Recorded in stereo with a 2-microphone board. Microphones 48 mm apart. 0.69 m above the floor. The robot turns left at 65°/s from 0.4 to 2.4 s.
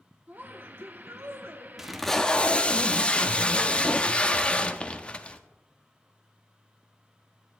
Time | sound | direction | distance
0.3 | a woman speaking | 45° right | 1.2 m
1.8 | tape being pulled | 170° right | 0.6 m